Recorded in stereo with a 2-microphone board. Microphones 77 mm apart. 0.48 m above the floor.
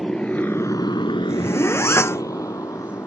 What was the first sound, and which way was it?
A motorcycle, 10° left (ahead or behind).